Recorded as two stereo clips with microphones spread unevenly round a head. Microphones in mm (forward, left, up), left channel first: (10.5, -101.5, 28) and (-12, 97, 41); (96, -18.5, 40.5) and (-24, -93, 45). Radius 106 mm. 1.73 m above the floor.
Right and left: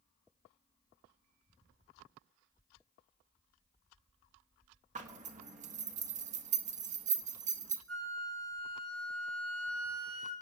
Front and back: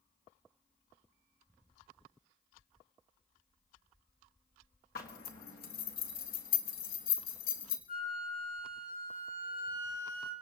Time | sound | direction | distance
5.0 | a zipper | 50° left | 1.5 m
7.9 | a flute | 75° left | 4 m